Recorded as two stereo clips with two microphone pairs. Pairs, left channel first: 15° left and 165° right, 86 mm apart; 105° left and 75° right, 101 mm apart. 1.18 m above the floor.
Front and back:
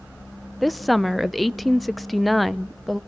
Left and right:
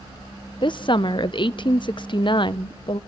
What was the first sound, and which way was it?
A woman speaking, 100° left.